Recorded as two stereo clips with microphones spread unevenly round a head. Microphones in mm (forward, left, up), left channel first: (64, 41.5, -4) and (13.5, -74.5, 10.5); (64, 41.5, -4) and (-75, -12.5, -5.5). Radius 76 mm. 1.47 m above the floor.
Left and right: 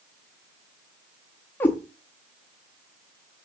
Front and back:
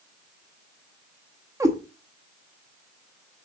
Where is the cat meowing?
145° left, 1.0 m.